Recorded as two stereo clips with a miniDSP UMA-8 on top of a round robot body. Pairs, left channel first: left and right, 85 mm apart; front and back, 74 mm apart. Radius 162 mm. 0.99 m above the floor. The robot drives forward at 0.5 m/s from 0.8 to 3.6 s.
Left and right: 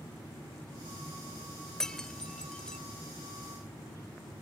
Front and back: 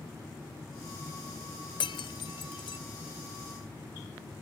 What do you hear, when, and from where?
1.8 s breaking glass: 10° left